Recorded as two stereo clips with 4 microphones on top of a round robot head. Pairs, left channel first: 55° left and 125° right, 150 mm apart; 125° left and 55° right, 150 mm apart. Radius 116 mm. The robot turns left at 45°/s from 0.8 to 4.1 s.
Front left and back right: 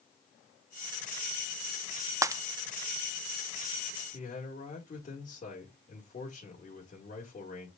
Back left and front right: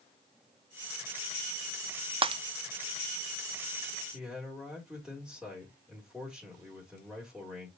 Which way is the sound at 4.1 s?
35° left.